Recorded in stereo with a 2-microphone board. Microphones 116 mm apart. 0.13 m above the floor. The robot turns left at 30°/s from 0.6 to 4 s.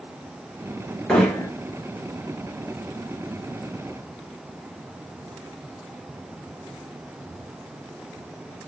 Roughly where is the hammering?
Centre.